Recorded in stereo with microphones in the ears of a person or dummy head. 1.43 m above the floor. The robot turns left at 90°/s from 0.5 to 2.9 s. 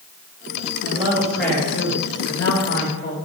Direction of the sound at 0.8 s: 135° right.